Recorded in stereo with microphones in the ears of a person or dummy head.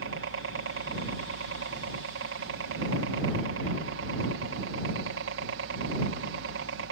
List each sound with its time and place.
0.0 s a helicopter: 60° right (ahead or behind)